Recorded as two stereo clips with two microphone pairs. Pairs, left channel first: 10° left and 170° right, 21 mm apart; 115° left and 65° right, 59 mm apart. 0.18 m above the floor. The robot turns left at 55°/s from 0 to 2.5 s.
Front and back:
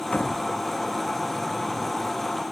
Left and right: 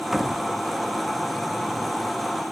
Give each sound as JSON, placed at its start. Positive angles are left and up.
{"t": 0.1, "sound": "a door slam", "azimuth_deg": 20}